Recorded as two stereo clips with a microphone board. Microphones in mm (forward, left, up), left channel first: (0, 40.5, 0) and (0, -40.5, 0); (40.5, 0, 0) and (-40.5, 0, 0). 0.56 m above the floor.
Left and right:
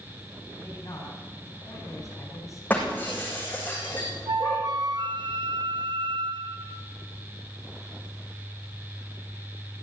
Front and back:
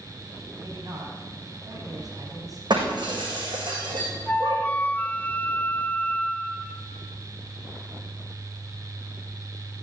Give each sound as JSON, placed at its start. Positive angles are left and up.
{"t": 0.6, "sound": "a man speaking", "azimuth_deg": 140, "distance_m": 4.5}
{"t": 2.7, "sound": "breaking glass", "azimuth_deg": 160, "distance_m": 7.0}
{"t": 4.3, "sound": "a flute", "azimuth_deg": -70, "distance_m": 0.6}